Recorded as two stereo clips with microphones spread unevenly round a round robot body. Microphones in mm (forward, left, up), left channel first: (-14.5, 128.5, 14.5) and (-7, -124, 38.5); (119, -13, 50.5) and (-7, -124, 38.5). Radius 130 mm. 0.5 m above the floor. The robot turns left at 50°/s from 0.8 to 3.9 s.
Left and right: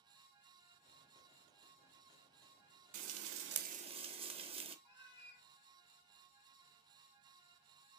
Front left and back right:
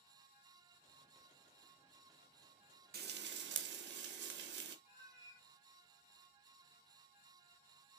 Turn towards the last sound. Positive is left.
turn(degrees=110)